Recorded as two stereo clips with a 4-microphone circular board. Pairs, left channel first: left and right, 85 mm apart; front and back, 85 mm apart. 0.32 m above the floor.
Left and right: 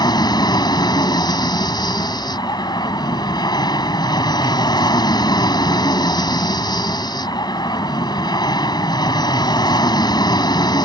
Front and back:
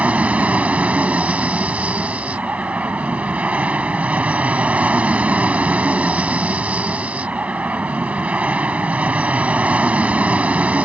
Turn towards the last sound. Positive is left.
turn(degrees=105)